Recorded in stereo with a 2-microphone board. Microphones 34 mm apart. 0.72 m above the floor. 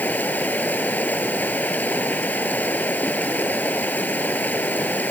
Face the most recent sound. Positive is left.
turn(degrees=65)  # may be behind; listen again after turning